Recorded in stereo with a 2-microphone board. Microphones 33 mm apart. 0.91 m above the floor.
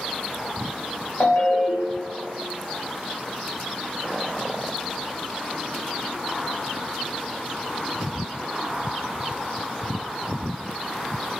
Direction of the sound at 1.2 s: 70° left (ahead or behind).